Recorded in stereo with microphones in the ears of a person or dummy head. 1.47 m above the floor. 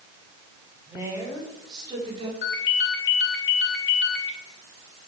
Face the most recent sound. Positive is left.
turn(degrees=60)  # may be behind; listen again after turning